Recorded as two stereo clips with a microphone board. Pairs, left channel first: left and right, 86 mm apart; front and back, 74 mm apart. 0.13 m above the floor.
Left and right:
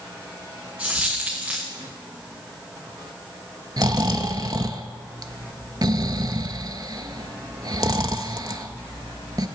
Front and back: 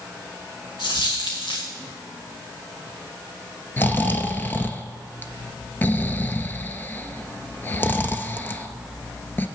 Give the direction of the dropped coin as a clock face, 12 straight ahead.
12 o'clock.